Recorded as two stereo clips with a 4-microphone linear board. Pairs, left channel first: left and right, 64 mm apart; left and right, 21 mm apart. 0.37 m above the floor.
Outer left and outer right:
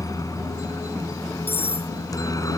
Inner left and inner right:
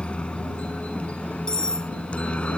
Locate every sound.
0.0 s a helicopter: 70° left (ahead or behind)
1.5 s cutlery clinking: 40° left (ahead or behind)